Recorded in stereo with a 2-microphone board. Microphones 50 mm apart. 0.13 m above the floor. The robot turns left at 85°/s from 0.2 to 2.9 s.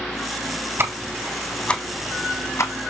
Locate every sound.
0.8 s ticking: 55° right (ahead or behind), 1.4 m; by 2.7 s 70° left (ahead or behind), 1.4 m